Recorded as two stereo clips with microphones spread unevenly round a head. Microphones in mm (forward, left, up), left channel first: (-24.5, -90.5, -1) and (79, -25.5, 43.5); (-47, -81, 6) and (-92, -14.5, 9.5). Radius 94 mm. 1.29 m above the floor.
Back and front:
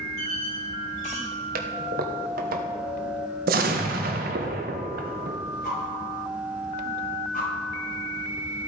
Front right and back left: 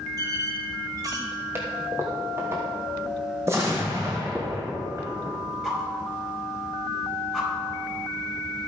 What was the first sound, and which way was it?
A squeak, 165° left.